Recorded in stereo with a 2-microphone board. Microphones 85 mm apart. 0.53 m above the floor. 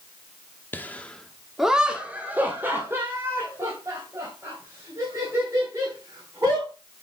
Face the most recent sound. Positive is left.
turn(degrees=-40)  # may be behind; listen again after turning